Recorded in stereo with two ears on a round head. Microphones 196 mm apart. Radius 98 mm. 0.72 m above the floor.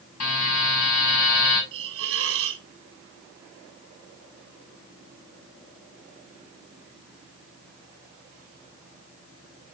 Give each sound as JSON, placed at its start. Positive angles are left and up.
{"t": 0.2, "sound": "a buzzer", "side_deg": 80, "distance_m": 5.5}
{"t": 1.7, "sound": "a hiss", "side_deg": -65, "distance_m": 1.4}